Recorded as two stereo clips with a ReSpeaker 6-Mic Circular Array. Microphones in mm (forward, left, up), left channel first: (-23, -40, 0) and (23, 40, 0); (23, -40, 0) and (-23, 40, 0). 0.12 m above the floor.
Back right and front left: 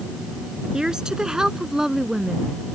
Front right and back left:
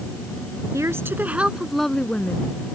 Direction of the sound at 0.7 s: 135° left.